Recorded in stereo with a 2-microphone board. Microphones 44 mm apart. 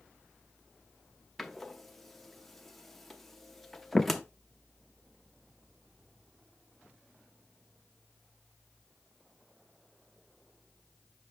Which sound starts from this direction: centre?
A door slam, at 1.4 s.